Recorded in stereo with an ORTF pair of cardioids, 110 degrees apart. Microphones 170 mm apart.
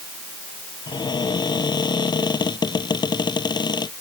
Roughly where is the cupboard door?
Ahead left.